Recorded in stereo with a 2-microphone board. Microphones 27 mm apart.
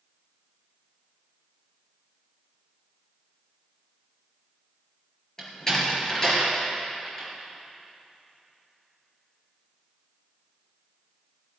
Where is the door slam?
20° left (ahead or behind), 4 m.